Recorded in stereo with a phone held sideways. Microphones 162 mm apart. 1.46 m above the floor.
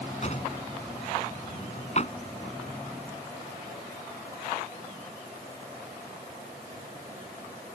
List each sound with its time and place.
0.2 s a drawer: 45° left (ahead or behind)